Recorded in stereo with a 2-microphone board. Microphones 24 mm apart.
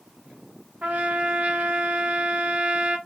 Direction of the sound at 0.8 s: 75° right (ahead or behind).